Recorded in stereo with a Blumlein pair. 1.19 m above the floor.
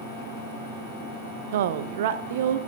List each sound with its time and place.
1.5 s a woman speaking: 55° right, 0.6 m